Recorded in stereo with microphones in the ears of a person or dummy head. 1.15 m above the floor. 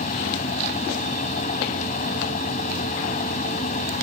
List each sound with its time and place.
0.0 s a fan: 40° left (ahead or behind)